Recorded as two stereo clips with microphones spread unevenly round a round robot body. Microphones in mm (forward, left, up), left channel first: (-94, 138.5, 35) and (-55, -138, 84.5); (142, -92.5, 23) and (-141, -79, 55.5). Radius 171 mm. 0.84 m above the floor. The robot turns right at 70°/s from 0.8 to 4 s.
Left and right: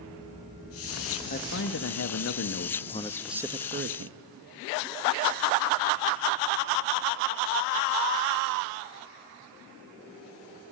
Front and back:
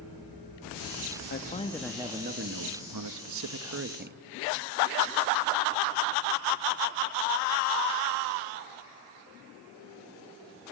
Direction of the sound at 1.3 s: 45° left.